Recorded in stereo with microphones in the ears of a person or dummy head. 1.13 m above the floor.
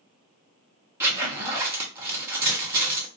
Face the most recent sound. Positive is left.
turn(degrees=-15)  # may be behind; listen again after turning